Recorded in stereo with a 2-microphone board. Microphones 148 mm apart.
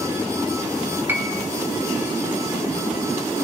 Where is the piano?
15° right (ahead or behind), 1.7 m.